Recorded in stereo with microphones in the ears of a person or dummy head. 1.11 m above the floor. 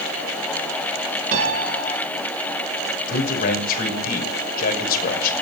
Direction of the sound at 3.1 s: 50° left (ahead or behind).